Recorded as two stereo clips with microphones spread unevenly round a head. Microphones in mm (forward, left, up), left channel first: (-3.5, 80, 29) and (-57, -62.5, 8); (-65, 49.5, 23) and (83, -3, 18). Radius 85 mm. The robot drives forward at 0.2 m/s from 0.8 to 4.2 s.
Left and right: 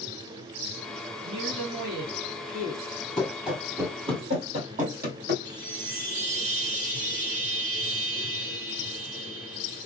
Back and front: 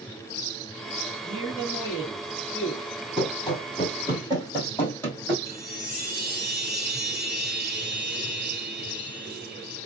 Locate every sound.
1.2 s a man speaking: 120° right, 1.6 m; by 2.9 s 130° right, 1.7 m
3.2 s running footsteps: 135° left, 1.4 m; by 5.3 s 115° right, 1.8 m
5.5 s a chime: 110° right, 2.5 m